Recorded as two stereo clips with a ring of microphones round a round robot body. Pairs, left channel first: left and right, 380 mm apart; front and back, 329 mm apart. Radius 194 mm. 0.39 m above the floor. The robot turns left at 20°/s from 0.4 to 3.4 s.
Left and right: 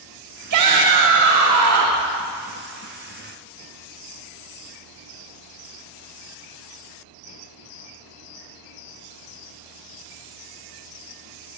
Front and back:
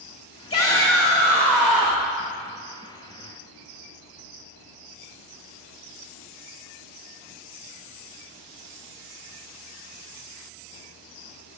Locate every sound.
0.5 s a shout: 65° right, 1.2 m; by 2.1 s 100° right, 1.2 m